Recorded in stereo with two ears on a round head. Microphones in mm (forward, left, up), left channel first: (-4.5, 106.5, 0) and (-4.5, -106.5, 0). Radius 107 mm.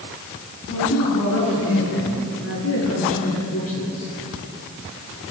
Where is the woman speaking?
55° left (ahead or behind), 9.5 m; by 4.1 s 65° left (ahead or behind), 13 m.